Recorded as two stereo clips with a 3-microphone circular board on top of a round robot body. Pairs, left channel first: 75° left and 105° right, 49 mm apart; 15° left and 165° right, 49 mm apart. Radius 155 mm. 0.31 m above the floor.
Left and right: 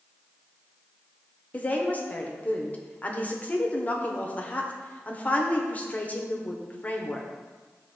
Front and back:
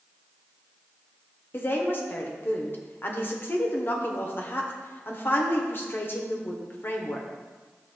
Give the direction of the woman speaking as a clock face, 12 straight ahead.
11 o'clock.